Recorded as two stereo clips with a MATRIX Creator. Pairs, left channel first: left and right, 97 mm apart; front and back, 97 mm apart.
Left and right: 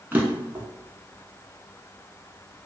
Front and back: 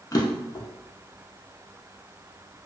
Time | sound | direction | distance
0.1 | a drawer | 30° right | 0.5 m